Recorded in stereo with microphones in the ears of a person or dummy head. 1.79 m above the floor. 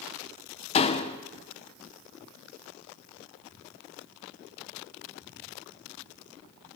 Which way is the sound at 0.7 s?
35° left (ahead or behind).